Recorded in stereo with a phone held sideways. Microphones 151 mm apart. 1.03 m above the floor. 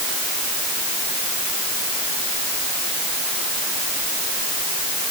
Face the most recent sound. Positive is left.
No sound to turn to.